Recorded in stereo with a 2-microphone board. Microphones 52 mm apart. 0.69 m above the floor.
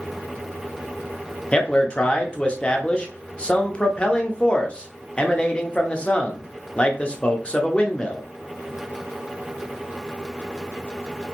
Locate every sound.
1.5 s a man speaking: 20° left (ahead or behind), 0.6 m